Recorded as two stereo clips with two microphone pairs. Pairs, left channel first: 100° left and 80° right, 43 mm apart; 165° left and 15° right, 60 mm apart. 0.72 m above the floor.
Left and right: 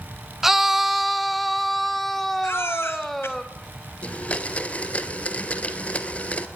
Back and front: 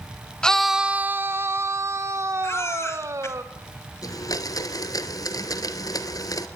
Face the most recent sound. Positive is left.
turn(degrees=160)